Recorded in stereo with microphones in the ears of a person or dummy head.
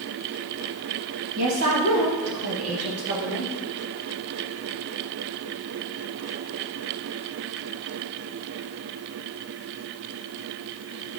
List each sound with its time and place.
1.4 s a woman speaking: 75° right (ahead or behind), 2.5 m; by 3.5 s 80° right, 1.7 m